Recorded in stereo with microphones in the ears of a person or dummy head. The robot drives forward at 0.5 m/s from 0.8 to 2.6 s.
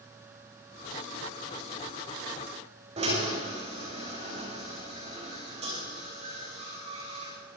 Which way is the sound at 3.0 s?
35° right (ahead or behind).